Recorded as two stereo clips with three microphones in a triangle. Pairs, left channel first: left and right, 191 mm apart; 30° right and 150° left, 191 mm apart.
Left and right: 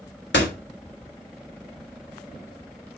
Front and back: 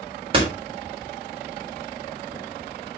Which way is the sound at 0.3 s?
90° left.